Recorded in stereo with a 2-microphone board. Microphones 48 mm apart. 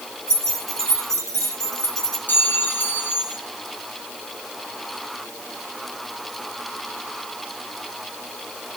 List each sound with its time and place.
0.3 s keys jangling: 80° right, 7.5 m
2.3 s a clink: 40° left (ahead or behind), 3 m